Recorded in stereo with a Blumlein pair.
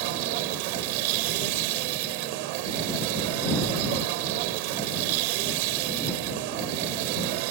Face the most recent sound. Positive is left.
turn(degrees=-45)